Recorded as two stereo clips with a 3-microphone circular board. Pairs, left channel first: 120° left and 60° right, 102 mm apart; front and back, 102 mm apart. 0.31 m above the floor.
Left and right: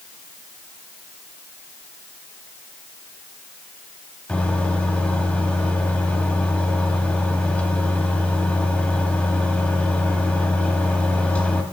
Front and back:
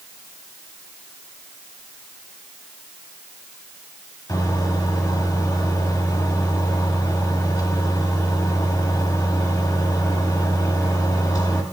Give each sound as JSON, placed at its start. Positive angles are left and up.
{"t": 4.3, "sound": "a microwave", "azimuth_deg": 45, "distance_m": 1.3}